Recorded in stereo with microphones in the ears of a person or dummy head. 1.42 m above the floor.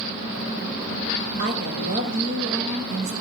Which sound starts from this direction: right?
A woman speaking, at 1.4 s.